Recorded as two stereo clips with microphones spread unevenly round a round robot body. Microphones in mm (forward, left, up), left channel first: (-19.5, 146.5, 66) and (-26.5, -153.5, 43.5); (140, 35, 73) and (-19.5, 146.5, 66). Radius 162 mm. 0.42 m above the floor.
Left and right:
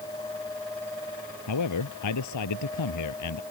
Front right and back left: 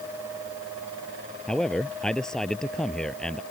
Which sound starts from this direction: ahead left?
A man speaking, at 1.5 s.